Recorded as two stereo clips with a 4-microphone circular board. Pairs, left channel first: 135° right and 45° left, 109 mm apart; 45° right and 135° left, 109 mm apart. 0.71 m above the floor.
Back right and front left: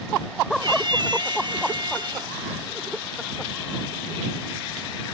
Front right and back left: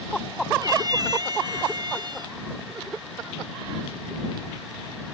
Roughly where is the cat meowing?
Left.